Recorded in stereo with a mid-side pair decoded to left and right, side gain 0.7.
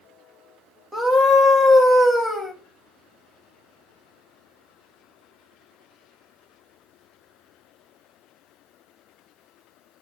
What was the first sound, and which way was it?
A scream, straight ahead.